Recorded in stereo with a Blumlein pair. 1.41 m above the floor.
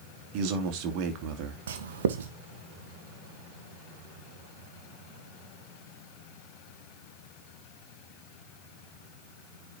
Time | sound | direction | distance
0.3 | a man speaking | 40° right | 2.5 m
1.7 | writing | 60° right | 1.6 m